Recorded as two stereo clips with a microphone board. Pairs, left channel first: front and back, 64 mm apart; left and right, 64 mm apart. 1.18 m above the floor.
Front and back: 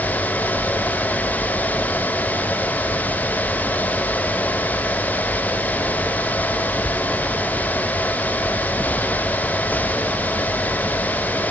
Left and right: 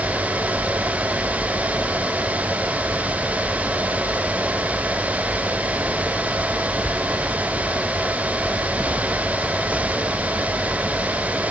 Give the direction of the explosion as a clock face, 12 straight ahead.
No explosion in this recording.